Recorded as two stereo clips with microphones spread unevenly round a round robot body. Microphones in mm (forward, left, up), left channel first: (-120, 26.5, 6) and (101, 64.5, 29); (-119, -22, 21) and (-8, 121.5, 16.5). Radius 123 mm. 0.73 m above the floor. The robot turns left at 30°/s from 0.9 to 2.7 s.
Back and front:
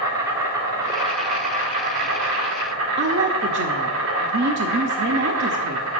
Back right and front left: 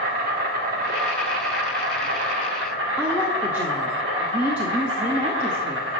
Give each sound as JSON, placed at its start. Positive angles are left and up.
{"t": 0.0, "sound": "an insect", "azimuth_deg": 85, "distance_m": 2.5}
{"t": 3.0, "sound": "a woman speaking", "azimuth_deg": -30, "distance_m": 0.8}